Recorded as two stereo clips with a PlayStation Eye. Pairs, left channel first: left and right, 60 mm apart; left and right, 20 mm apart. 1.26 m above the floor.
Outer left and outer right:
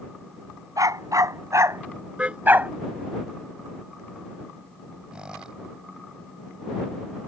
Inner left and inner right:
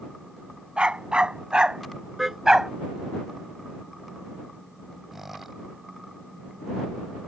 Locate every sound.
0.8 s a dog barking: 70° right (ahead or behind); by 2.7 s 25° right (ahead or behind)
2.2 s a car horn: 20° right (ahead or behind)
5.1 s a squeak: 15° right (ahead or behind)